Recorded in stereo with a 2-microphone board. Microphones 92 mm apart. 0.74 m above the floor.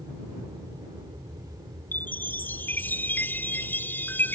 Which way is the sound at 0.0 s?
60° right (ahead or behind).